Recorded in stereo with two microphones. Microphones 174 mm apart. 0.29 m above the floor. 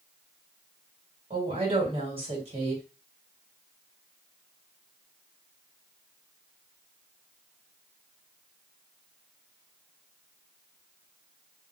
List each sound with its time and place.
1.3 s a woman speaking: 35° right (ahead or behind), 2.0 m